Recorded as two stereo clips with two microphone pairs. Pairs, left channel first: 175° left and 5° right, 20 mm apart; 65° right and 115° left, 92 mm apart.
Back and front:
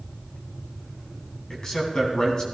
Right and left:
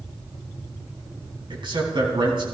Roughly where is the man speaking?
Behind left.